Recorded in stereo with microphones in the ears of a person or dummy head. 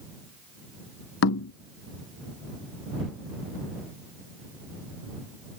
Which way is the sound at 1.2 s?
70° left (ahead or behind).